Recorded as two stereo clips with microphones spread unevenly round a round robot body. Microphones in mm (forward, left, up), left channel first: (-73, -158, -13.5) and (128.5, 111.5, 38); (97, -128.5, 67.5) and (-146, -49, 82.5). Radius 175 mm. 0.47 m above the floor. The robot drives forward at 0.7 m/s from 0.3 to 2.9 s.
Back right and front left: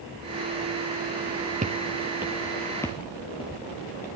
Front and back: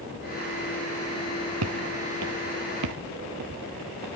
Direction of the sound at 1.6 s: 120° left.